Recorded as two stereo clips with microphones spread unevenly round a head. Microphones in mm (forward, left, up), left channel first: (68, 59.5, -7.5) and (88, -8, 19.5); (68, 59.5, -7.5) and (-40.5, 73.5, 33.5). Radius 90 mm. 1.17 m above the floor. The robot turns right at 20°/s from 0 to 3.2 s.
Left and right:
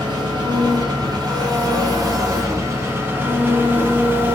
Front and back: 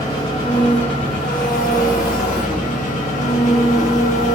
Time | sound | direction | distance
0.0 | an engine running | 80° right | 0.8 m